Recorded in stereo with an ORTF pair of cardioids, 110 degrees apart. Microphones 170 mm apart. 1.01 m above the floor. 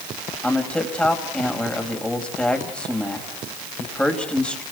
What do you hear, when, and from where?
0.4 s a man speaking: 5° left, 5 m